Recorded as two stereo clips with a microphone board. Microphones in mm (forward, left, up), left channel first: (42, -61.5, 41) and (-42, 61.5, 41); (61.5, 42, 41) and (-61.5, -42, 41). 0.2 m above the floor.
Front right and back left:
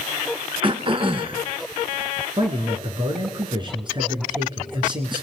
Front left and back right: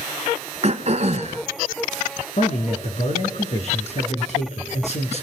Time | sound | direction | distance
0.6 | throat clearing | 175° left | 1.4 m
2.4 | a man speaking | 70° left | 3.5 m